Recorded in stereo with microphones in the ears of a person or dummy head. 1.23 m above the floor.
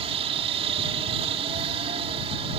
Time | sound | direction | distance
0.0 | a helicopter | 25° right (ahead or behind) | ?